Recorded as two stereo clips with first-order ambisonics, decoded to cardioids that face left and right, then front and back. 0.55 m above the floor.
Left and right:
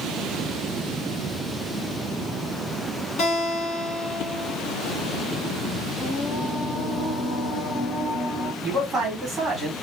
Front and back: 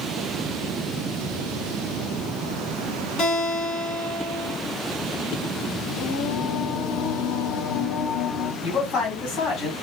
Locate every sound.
3.2 s a guitar: 50° left, 1.6 m
6.0 s singing: 10° left, 1.1 m
8.6 s a man speaking: 25° right, 1.6 m